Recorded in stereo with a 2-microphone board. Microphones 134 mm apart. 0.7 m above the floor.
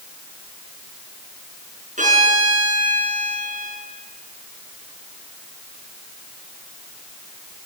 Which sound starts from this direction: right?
A violin, at 2.0 s.